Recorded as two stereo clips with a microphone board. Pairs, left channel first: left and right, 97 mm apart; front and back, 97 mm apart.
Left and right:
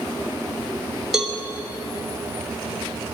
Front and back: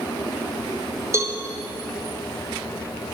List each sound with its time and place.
1.1 s a cowbell: 170° right, 0.7 m